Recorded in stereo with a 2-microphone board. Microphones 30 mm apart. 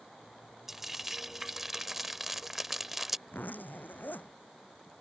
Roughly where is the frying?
Centre.